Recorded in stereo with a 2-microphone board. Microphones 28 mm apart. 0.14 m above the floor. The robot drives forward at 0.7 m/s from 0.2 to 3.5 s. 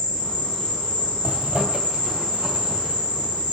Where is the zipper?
55° right (ahead or behind), 4 m; by 3.5 s 40° right (ahead or behind), 5 m.